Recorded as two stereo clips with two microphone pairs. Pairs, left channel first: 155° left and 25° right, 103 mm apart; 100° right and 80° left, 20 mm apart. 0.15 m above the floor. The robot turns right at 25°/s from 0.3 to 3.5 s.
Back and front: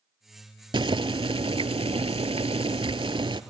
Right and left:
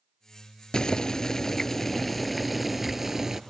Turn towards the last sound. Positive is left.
turn(degrees=10)